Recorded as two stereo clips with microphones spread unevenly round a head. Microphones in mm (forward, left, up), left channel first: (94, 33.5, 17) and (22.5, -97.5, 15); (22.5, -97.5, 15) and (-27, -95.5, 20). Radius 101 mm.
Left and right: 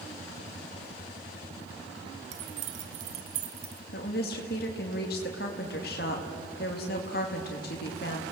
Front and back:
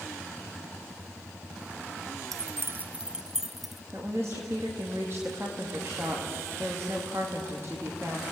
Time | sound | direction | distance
2.3 | keys jangling | straight behind | 0.7 m
3.9 | a woman speaking | 105° left | 2 m